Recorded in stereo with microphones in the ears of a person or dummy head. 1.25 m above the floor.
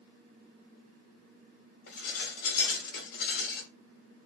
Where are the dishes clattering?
55° left (ahead or behind), 4.5 m.